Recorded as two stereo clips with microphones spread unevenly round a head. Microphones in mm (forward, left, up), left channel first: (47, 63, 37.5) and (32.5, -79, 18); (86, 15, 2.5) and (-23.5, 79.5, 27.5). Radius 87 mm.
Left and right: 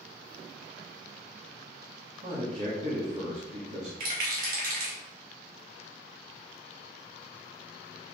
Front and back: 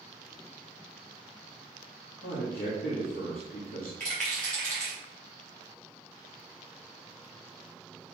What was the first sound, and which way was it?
A man speaking, 60° right.